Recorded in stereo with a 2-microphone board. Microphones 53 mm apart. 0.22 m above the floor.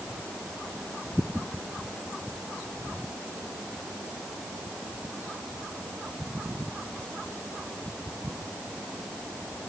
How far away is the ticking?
No ticking in this recording.